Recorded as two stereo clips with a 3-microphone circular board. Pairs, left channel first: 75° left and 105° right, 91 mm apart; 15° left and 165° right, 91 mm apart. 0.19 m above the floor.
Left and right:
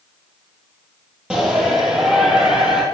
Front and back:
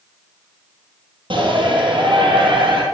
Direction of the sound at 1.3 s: 175° left.